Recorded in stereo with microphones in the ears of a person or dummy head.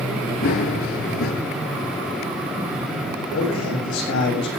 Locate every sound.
0.4 s running footsteps: 35° left (ahead or behind), 1.3 m
3.3 s a man speaking: 70° left (ahead or behind), 8 m